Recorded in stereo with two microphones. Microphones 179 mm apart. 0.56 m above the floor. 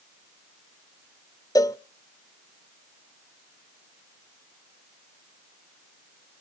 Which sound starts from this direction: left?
A cowbell, at 1.6 s.